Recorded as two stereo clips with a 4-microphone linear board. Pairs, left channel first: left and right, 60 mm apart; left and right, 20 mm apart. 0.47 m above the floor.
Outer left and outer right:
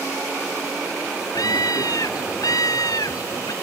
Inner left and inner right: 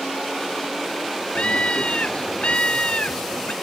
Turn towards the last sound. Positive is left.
turn(degrees=85)